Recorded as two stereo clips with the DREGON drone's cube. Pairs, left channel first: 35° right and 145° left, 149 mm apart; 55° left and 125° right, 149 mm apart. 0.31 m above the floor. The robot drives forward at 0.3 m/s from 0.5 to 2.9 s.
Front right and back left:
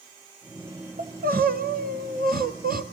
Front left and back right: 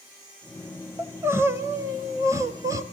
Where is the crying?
160° left, 1.4 m; by 2.8 s 165° left, 1.9 m.